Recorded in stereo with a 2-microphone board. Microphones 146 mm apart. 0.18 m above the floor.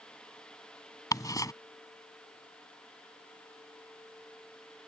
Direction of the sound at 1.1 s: 25° left (ahead or behind).